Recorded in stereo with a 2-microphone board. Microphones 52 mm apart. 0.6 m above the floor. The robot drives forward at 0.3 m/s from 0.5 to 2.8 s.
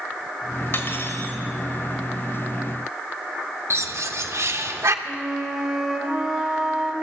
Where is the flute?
Centre (ahead or behind), 2.5 m.